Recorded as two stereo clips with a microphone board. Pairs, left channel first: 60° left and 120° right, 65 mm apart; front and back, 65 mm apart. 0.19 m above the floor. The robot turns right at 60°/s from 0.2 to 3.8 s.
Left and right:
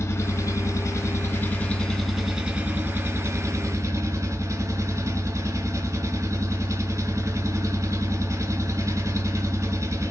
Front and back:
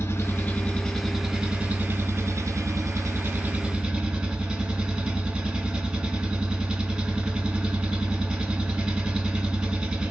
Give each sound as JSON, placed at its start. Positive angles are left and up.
{"t": 0.0, "sound": "an engine running", "azimuth_deg": 35, "distance_m": 0.7}